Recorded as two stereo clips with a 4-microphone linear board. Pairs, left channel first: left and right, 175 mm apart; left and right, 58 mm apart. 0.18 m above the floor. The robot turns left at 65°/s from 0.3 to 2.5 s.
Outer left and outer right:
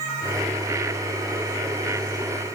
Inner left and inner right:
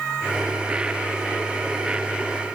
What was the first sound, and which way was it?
Only background noise.